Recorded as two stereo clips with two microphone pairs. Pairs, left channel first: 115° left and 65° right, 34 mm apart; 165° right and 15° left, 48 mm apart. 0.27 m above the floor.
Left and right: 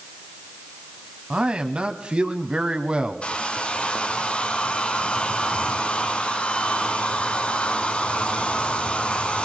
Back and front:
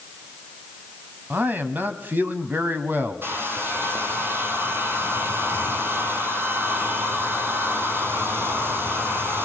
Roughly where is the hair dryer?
Ahead left.